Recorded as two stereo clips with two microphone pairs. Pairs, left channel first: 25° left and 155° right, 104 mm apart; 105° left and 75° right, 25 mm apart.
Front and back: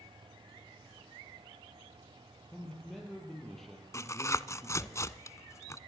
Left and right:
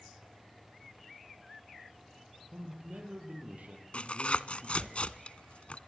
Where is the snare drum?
No snare drum in this recording.